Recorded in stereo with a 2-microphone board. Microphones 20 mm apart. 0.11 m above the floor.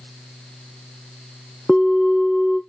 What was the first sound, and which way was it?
A bell, 20° left (ahead or behind).